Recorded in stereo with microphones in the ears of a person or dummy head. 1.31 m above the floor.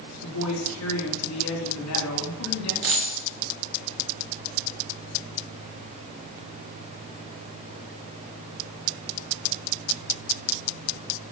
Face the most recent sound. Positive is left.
turn(degrees=-65)  # may be behind; listen again after turning